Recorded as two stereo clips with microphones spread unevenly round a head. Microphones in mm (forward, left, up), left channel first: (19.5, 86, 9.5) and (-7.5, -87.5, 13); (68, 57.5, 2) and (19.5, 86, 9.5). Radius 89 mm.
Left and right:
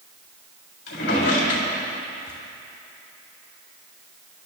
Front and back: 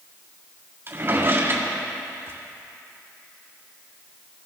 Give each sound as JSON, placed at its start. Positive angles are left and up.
{"t": 0.9, "sound": "a drawer", "azimuth_deg": 110, "distance_m": 4.0}